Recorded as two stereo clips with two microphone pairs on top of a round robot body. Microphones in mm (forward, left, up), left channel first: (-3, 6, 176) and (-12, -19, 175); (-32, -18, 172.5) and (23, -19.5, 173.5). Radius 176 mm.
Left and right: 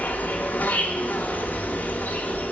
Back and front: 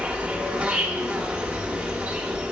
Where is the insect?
70° left, 1.0 m.